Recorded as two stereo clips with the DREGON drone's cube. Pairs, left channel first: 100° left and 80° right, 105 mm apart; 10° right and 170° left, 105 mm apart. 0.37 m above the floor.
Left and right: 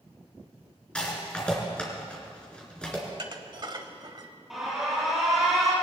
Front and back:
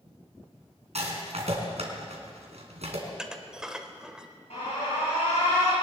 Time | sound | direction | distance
0.9 | a rattle | straight behind | 3 m
3.1 | dishes clattering | 110° right | 1.1 m
4.5 | an alarm | 5° left | 6 m